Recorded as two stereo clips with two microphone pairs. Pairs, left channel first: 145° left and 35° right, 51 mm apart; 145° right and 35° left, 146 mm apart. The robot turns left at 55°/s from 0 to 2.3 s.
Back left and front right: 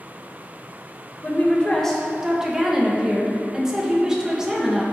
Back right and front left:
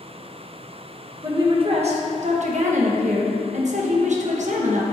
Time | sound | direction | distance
1.2 | a woman speaking | 100° left | 1.0 m